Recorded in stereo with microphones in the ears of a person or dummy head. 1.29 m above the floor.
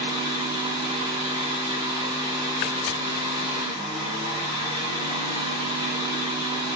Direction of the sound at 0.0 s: 20° right (ahead or behind).